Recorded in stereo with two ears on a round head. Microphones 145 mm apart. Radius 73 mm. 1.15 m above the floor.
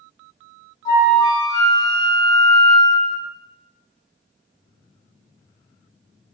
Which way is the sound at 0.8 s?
20° left (ahead or behind).